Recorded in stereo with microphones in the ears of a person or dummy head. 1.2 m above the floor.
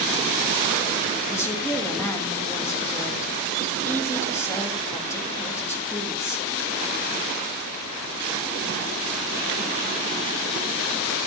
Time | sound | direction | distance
1.3 | a woman speaking | 20° left (ahead or behind) | 1.3 m